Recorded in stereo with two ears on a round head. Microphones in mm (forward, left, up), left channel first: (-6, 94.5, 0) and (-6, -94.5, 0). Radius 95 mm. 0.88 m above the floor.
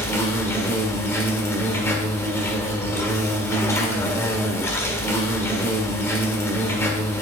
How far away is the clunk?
I don't hear a clunk.